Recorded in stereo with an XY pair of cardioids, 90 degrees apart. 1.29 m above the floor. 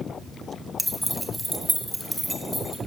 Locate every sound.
0.8 s keys jangling: 5° left, 1.1 m; by 2.8 s 10° right, 2 m